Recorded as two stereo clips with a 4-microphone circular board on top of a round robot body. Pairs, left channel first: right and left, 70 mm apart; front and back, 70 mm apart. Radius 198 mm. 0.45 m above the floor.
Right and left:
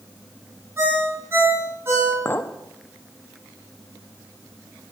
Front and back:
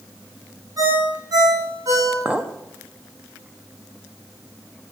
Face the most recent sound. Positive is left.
turn(degrees=-120)